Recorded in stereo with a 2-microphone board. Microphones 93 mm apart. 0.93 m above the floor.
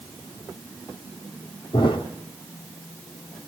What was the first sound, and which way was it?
A thud, 60° left (ahead or behind).